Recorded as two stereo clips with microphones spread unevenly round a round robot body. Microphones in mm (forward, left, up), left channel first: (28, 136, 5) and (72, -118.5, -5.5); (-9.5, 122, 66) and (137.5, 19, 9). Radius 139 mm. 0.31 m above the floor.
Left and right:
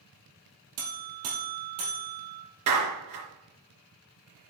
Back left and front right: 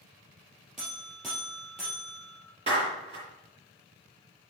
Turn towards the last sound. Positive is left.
turn(degrees=-95)